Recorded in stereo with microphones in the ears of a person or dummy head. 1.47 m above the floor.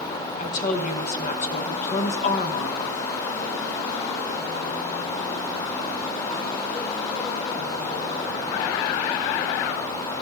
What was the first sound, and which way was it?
A woman speaking, 45° left (ahead or behind).